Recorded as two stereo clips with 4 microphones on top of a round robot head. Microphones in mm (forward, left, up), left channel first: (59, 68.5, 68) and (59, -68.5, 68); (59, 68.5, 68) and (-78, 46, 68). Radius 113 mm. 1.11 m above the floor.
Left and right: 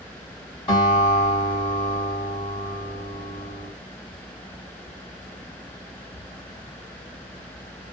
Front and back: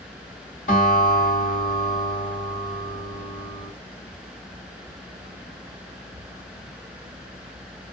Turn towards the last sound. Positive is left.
turn(degrees=35)